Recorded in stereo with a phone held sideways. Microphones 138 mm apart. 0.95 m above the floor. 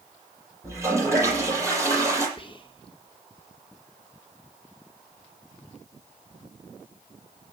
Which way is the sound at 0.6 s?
20° right (ahead or behind).